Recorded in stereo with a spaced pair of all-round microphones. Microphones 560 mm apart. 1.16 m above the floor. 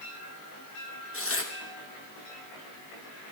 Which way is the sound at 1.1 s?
25° left (ahead or behind).